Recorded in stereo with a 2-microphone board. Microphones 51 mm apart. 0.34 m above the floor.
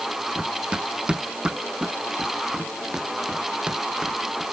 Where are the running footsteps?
20° right (ahead or behind); by 4.5 s 15° right (ahead or behind).